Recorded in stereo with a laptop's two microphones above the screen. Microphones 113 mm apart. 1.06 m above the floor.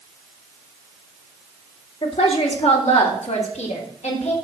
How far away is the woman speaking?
About 2.5 m.